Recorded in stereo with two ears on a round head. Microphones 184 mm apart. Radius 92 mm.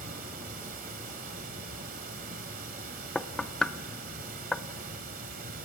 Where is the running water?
45° right (ahead or behind), 1.8 m.